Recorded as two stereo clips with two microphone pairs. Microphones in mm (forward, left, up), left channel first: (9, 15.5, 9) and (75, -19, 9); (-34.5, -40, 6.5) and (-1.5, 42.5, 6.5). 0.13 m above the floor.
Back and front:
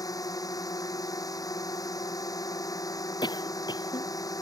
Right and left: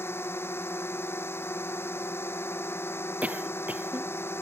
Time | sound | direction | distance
0.0 | a drone | 175° right | ?
3.2 | a cough | 140° left | ?